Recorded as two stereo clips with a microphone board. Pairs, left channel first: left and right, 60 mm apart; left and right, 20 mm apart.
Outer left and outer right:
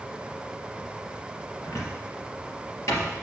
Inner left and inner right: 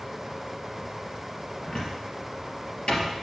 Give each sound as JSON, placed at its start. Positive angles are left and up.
{"t": 1.6, "sound": "a cupboard door", "side_deg": 55, "distance_m": 3.0}